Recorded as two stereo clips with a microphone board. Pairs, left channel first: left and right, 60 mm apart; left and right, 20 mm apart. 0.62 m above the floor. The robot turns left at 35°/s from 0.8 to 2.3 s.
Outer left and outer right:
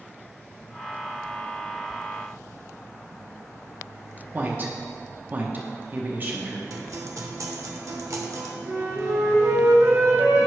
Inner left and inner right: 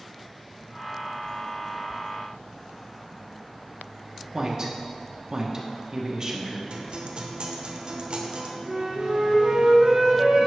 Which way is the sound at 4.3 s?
35° right (ahead or behind).